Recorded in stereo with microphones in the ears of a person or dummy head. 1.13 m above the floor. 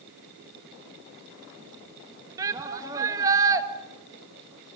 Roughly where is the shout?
Centre.